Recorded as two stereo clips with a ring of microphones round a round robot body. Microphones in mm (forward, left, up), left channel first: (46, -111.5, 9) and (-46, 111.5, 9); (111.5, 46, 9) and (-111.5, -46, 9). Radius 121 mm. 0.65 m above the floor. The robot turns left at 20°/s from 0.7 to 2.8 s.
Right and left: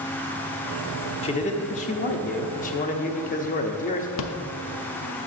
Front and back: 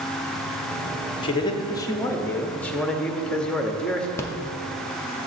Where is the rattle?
55° right, 0.6 m.